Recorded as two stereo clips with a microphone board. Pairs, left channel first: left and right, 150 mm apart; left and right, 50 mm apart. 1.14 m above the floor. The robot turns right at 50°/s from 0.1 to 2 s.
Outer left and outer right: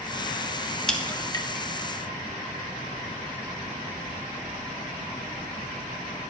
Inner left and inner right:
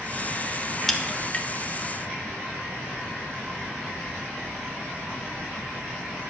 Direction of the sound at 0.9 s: 5° left (ahead or behind).